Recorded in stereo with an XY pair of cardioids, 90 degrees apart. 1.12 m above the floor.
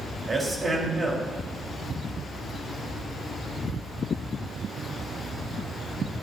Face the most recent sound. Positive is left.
turn(degrees=-35)